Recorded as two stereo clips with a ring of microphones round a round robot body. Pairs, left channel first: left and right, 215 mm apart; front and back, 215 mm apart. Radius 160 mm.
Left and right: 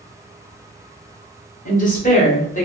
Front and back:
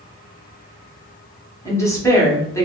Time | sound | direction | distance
1.6 | a woman speaking | 70° left | 1.2 m